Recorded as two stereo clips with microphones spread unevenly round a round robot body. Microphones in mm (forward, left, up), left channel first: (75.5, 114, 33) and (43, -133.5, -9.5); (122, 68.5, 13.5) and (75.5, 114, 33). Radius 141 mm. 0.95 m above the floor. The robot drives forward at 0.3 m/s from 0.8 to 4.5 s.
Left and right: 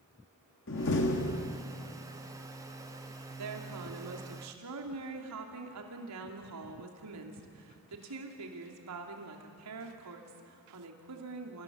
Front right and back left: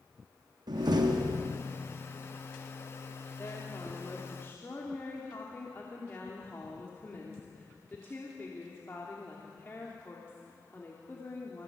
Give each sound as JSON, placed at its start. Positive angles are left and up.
{"t": 0.7, "sound": "a door slam", "azimuth_deg": 135, "distance_m": 1.1}
{"t": 3.4, "sound": "a woman speaking", "azimuth_deg": -110, "distance_m": 2.5}